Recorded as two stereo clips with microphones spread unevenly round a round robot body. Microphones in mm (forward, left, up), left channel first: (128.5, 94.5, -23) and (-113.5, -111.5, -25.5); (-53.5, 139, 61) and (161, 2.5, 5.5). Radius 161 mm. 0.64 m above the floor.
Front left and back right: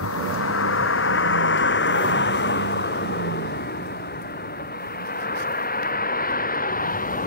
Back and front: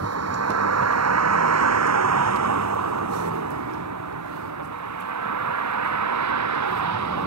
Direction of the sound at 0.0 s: 10° right.